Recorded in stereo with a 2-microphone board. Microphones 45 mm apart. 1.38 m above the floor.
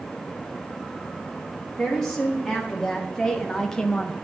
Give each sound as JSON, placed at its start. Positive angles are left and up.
{"t": 1.8, "sound": "a woman speaking", "side_deg": 10, "distance_m": 2.0}